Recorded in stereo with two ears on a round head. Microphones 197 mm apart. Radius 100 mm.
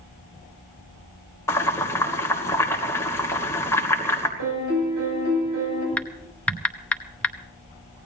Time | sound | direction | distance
1.5 | boiling | 15° left (ahead or behind) | 3 m
4.4 | a piano | 80° right | 8.5 m
6.0 | typing on a keyboard | 5° left (ahead or behind) | 0.8 m